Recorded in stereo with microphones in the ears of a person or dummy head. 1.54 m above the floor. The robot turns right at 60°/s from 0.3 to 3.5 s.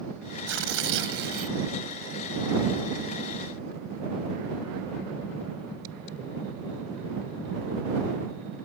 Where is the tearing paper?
105° right; by 1.6 s 40° right.